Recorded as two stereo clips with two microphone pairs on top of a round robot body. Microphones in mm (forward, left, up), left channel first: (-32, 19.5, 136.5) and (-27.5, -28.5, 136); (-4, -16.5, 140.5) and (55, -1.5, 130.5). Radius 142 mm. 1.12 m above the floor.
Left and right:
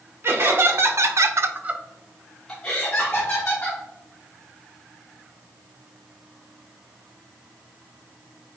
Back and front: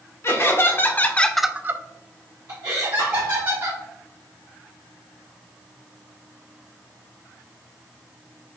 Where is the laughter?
120° right, 1.5 m; by 3.8 s 35° left, 2.5 m.